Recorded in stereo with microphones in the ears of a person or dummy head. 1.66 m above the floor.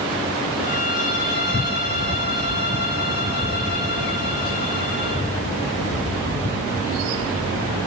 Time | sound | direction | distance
0.6 | a violin | 75° left (ahead or behind) | 9.5 m